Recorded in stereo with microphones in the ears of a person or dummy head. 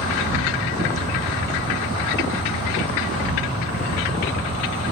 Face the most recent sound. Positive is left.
turn(degrees=-35)  # may be behind; listen again after turning